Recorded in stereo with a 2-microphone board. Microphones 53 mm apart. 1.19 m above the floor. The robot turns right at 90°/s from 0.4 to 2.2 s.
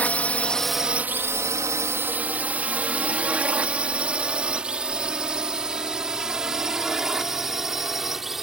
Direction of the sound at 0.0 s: 30° left (ahead or behind).